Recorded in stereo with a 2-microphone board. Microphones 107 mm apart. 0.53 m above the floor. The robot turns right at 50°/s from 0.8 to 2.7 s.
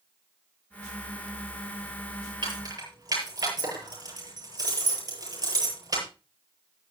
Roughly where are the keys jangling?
Right.